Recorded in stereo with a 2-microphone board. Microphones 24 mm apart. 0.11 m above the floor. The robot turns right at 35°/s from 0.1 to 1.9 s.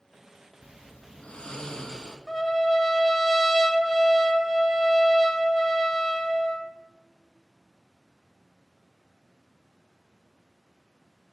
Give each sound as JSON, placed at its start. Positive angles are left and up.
{"t": 0.6, "sound": "snoring", "azimuth_deg": 105, "distance_m": 1.2}
{"t": 2.3, "sound": "a trumpet", "side_deg": 10, "distance_m": 0.7}